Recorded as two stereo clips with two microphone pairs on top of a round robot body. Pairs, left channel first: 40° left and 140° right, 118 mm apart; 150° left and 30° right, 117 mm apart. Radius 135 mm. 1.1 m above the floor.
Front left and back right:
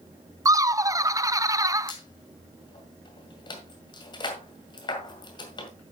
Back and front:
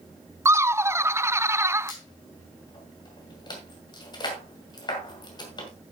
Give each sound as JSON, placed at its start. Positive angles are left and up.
{"t": 0.5, "sound": "laughter", "azimuth_deg": -85, "distance_m": 0.6}
{"t": 1.9, "sound": "a squeak", "azimuth_deg": 95, "distance_m": 2.0}